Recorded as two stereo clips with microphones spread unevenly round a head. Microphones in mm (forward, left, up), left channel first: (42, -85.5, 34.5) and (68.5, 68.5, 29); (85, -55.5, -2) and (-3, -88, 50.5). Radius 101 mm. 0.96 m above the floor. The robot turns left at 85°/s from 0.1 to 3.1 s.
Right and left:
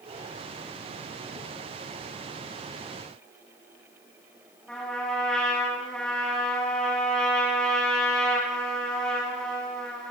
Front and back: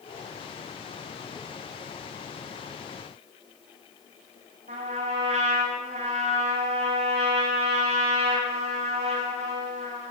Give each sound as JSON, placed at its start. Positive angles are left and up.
{"t": 4.7, "sound": "a trumpet", "azimuth_deg": 175, "distance_m": 4.5}